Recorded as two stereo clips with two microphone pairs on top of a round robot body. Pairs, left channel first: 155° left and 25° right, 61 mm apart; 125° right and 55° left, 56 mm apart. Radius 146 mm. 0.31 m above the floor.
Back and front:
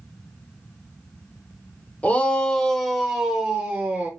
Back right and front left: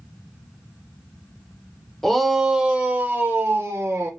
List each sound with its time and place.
2.0 s a shout: 155° left, 1.1 m; by 4.1 s 40° left, 1.4 m